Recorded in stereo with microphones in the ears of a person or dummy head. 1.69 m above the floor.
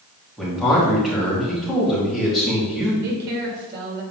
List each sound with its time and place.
0.4 s a man speaking: centre (ahead or behind), 2.5 m
3.0 s a woman speaking: 55° right (ahead or behind), 2 m